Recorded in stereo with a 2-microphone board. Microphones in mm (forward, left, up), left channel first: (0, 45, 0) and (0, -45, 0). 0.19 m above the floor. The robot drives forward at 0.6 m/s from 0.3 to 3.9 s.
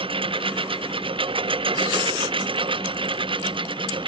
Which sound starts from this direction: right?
A lawn mower, at 0.0 s.